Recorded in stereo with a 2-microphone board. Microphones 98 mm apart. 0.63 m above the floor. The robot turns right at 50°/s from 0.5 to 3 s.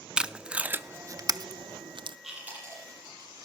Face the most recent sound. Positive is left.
turn(degrees=-40)  # may be behind; listen again after turning